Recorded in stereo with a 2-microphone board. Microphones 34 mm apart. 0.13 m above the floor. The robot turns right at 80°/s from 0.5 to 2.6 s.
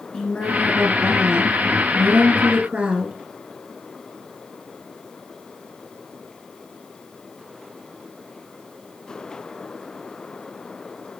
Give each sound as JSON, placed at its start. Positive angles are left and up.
{"t": 0.1, "sound": "a woman speaking", "azimuth_deg": 150, "distance_m": 1.8}